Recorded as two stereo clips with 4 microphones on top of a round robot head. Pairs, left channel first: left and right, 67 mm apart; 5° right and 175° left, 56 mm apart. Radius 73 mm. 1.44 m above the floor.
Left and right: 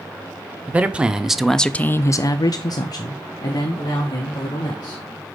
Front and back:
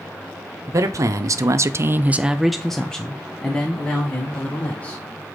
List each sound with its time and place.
0.7 s a man speaking: 160° right, 1.1 m; by 5.0 s 55° left, 2.5 m